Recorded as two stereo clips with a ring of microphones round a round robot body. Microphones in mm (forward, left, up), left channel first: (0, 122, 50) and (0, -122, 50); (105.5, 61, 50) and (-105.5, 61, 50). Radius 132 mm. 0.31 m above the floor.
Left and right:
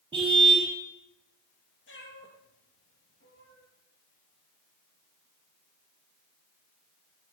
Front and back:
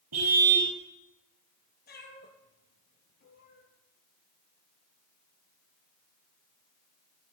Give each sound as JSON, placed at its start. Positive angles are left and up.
{"t": 0.1, "sound": "a car horn", "azimuth_deg": -160, "distance_m": 5.0}
{"t": 1.9, "sound": "a cat meowing", "azimuth_deg": 45, "distance_m": 4.0}